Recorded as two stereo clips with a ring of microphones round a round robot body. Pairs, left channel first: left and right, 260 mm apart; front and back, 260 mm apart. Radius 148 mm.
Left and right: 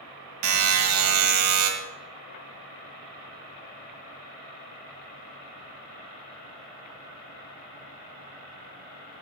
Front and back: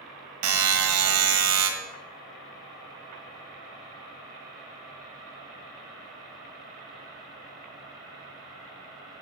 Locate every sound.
0.4 s a buzzer: 135° right, 1.3 m